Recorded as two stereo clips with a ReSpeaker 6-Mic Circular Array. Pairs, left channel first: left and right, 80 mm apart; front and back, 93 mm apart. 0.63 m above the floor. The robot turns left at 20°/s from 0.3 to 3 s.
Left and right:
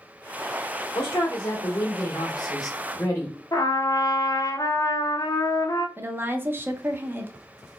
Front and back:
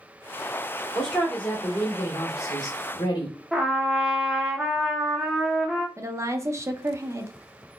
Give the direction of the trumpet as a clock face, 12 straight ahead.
9 o'clock.